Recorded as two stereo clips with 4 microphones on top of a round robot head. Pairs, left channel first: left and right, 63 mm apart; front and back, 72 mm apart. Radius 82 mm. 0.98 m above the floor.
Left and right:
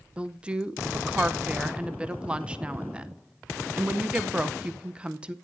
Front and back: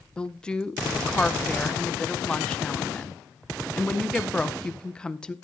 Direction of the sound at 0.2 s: 55° right.